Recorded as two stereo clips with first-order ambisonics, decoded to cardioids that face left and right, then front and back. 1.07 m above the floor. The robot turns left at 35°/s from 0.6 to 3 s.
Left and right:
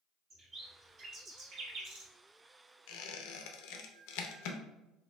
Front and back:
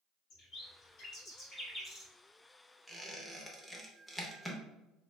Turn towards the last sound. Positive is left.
turn(degrees=90)